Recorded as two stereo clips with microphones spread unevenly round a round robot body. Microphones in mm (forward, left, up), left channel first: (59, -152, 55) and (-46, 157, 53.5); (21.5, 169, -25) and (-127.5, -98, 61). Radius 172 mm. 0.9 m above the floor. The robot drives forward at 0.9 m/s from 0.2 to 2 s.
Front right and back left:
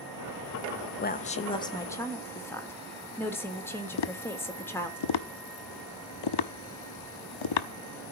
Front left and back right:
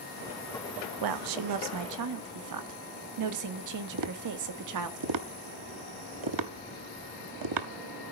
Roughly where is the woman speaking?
Behind right.